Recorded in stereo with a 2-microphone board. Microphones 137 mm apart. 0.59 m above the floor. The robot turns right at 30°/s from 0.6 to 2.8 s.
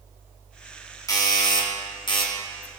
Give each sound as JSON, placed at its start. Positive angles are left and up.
{"t": 1.1, "sound": "a doorbell", "azimuth_deg": 45, "distance_m": 1.4}